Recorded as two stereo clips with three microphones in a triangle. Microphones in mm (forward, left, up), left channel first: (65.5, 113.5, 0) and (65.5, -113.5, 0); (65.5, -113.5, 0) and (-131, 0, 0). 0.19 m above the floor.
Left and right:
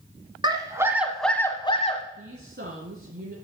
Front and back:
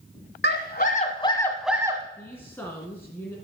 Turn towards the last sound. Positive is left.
turn(degrees=-110)